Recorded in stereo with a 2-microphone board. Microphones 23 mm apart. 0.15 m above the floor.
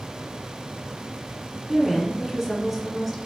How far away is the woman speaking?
About 1.4 m.